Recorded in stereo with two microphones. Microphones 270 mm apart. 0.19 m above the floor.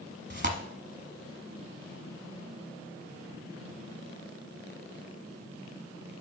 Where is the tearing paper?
40° right (ahead or behind), 0.9 m.